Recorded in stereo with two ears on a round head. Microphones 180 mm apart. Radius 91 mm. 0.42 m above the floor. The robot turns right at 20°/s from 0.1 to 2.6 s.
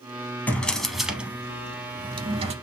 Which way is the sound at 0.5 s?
170° left.